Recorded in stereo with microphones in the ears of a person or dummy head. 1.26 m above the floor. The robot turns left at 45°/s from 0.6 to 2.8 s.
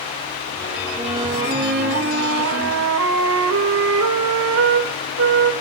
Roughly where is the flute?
Ahead.